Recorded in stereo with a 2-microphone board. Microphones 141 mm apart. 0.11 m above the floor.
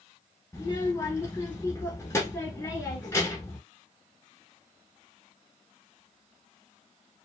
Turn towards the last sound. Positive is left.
turn(degrees=20)  # may be behind; listen again after turning